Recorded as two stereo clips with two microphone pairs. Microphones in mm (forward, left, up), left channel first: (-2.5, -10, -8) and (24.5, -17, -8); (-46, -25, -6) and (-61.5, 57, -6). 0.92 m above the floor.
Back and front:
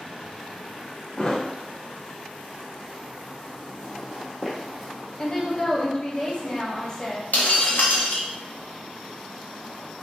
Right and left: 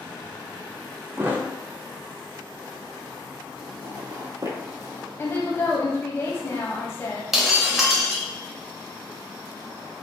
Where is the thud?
120° left, 0.5 m.